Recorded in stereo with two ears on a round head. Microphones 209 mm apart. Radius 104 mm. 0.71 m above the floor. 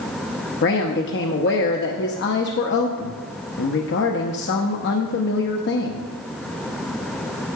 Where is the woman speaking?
50° left (ahead or behind), 0.8 m.